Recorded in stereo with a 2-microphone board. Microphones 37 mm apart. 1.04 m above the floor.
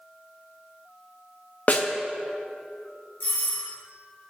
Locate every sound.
1.7 s a snare drum: 45° left (ahead or behind), 0.7 m
3.2 s a doorbell: 65° left (ahead or behind), 3 m